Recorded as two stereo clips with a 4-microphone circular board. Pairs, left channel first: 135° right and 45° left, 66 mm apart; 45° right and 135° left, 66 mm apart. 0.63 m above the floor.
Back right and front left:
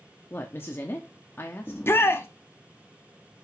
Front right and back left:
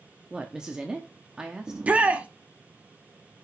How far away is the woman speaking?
About 1.0 m.